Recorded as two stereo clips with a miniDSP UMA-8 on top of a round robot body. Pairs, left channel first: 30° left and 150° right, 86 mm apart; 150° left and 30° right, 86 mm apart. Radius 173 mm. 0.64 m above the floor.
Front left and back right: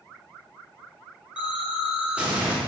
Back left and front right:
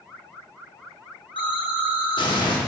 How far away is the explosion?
About 2.5 m.